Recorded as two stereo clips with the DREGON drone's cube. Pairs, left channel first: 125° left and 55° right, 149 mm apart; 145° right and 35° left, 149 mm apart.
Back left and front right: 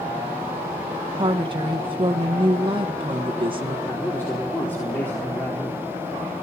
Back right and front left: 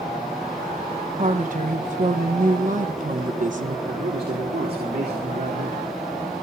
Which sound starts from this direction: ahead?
A woman speaking, at 1.2 s.